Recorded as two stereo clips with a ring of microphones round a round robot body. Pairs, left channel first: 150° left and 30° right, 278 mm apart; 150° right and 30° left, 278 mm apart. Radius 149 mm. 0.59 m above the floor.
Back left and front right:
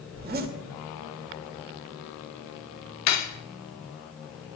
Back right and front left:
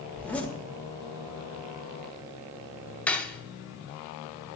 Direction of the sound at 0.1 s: 65° right.